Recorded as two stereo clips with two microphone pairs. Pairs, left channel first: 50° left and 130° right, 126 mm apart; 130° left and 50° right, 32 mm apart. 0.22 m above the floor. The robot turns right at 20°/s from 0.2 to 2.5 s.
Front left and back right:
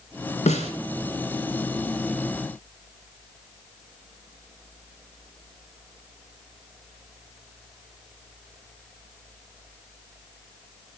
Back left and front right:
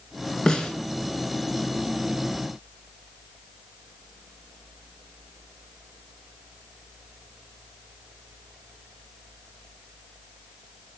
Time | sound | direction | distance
0.5 | a snare drum | 70° left | 0.8 m